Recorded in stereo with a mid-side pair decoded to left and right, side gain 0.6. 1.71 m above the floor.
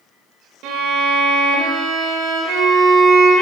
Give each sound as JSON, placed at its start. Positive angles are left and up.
{"t": 0.6, "sound": "a violin", "azimuth_deg": -70, "distance_m": 0.7}